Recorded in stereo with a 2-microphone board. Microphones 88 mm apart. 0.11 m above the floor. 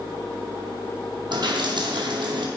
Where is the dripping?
60° right (ahead or behind), 2 m.